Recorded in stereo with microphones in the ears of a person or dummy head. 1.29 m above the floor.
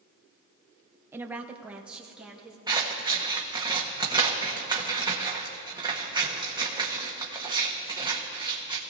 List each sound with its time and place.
1.1 s a woman speaking: 10° right (ahead or behind), 0.6 m; by 2.6 s 5° right (ahead or behind), 2.5 m
2.7 s scissors: 25° right (ahead or behind), 1.3 m